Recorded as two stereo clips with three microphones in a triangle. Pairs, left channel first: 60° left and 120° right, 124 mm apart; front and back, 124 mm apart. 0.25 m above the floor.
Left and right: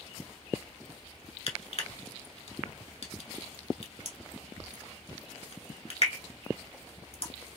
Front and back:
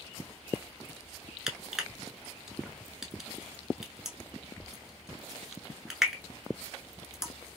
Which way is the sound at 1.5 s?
95° left.